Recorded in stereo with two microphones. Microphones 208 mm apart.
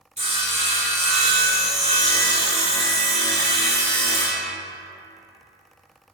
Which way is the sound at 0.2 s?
35° right (ahead or behind).